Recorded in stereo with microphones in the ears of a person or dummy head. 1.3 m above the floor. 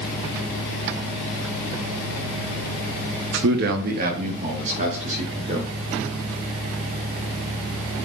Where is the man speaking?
60° right (ahead or behind), 1.0 m; by 5.7 s 35° right (ahead or behind), 3.5 m.